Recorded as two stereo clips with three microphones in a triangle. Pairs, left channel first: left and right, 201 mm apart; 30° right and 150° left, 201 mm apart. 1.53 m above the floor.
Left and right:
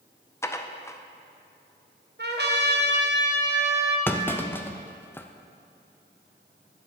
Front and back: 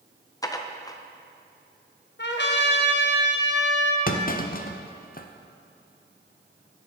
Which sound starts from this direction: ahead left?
Dishes clattering, at 0.4 s.